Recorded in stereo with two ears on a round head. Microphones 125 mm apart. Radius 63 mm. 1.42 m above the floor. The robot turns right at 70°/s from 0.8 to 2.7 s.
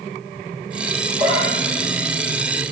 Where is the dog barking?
40° right (ahead or behind), 7.5 m; by 2.6 s 60° left (ahead or behind), 7.5 m.